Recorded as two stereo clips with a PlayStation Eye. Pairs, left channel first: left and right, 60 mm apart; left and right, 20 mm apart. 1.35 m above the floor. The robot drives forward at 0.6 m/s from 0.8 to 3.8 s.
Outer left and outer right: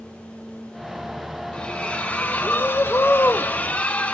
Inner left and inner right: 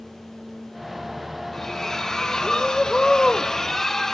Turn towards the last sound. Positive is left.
turn(degrees=25)  # may be behind; listen again after turning